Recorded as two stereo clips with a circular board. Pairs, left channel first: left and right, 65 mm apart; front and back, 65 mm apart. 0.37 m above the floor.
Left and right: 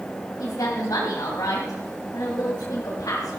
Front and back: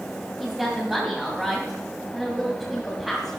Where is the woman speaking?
95° left, 2.5 m.